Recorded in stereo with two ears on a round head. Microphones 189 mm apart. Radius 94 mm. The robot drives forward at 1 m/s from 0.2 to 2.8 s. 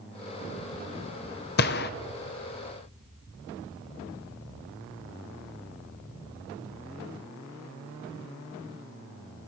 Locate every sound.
1.6 s a gunshot: 45° left (ahead or behind), 0.5 m